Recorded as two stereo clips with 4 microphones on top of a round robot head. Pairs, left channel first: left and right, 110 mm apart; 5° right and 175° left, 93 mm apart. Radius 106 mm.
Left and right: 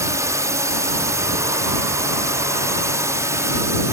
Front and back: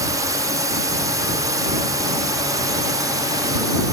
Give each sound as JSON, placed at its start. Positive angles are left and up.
{"t": 0.0, "sound": "a drone", "azimuth_deg": -145}